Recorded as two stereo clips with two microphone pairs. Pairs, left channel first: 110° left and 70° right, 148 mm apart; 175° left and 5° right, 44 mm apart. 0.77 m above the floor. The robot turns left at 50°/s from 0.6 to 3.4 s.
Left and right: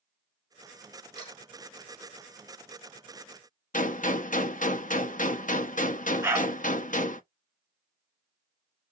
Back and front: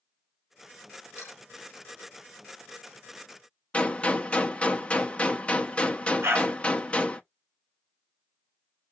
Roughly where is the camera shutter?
Behind.